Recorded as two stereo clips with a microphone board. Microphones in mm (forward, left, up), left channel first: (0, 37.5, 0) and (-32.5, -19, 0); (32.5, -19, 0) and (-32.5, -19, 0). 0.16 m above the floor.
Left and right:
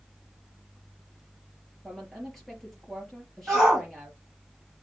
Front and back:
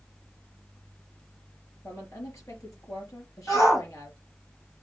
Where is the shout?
35° right, 3.5 m.